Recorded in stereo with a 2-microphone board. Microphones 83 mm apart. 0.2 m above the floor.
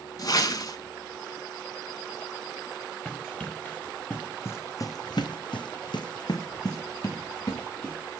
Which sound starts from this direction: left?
A whoosh, at 0.2 s.